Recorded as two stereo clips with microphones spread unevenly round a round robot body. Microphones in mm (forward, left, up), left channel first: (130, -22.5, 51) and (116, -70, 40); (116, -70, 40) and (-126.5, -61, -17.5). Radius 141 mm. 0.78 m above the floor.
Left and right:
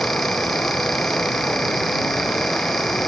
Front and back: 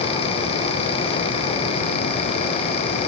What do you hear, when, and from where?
Only background noise.